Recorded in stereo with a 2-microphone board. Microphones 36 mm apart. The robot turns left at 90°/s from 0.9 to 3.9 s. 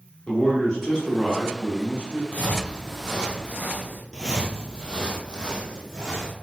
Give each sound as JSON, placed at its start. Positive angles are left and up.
{"t": 0.3, "sound": "a man speaking", "azimuth_deg": 35, "distance_m": 1.3}
{"t": 2.3, "sound": "footsteps", "side_deg": 45, "distance_m": 0.7}
{"t": 4.1, "sound": "footsteps", "side_deg": -20, "distance_m": 0.6}